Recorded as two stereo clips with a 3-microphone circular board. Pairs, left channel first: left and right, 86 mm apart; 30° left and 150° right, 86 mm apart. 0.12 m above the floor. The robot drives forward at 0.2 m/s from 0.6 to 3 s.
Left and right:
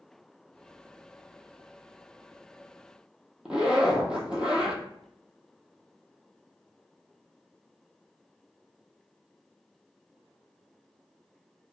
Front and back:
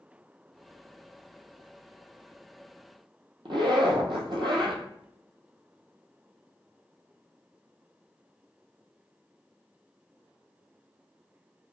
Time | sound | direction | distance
3.5 | a zipper | 170° right | 0.6 m